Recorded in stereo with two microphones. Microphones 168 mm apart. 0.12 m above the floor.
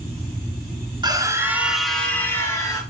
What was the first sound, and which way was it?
A scream, 25° right (ahead or behind).